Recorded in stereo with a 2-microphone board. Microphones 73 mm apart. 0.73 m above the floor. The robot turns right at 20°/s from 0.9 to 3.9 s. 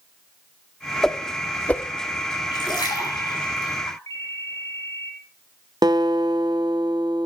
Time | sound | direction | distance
1.0 | a whoosh | 5° left (ahead or behind) | 0.9 m
2.5 | a splash | 75° left (ahead or behind) | 4 m
4.1 | a ringtone | 50° left (ahead or behind) | 6.5 m
5.8 | a guitar | 70° right (ahead or behind) | 0.7 m